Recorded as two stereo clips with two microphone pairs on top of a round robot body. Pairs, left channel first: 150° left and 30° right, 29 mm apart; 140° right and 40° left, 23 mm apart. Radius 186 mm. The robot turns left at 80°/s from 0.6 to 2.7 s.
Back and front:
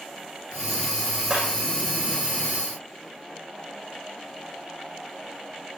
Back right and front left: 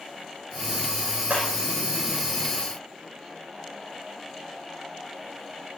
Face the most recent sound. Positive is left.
turn(degrees=-80)